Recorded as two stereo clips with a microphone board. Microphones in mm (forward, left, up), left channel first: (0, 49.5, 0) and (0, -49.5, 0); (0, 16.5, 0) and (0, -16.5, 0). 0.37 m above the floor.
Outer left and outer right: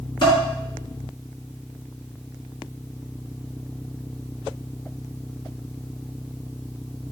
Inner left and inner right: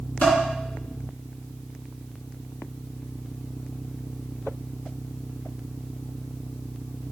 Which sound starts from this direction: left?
Dishes clattering, at 0.2 s.